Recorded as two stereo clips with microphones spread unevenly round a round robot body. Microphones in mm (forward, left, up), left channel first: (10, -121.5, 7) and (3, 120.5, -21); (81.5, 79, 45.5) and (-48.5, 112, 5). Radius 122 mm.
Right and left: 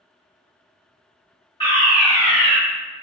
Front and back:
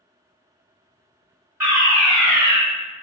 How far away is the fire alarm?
About 1.5 m.